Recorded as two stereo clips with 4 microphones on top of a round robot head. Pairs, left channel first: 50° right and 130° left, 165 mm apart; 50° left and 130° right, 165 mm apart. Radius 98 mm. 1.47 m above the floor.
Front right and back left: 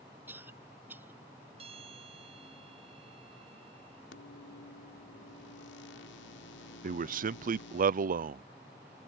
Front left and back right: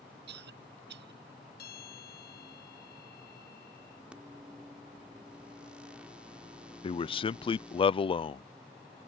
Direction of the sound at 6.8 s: 105° left.